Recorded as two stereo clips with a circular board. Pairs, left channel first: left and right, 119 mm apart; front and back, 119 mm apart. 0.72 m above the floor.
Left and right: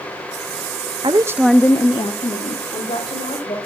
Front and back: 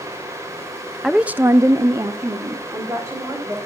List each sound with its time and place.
1.0 s a woman speaking: 90° right, 0.6 m; by 3.6 s 115° left, 2 m